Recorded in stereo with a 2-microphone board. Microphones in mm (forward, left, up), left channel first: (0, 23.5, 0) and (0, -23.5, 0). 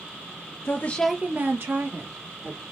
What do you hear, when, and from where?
0.7 s a woman speaking: 55° left (ahead or behind), 0.8 m; by 2.6 s 75° right (ahead or behind), 2.5 m